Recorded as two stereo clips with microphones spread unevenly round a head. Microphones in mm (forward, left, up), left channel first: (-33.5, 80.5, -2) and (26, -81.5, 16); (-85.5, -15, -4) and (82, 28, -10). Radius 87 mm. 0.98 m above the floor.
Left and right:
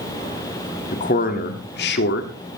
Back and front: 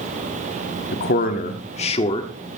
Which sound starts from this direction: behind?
A man speaking, at 0.9 s.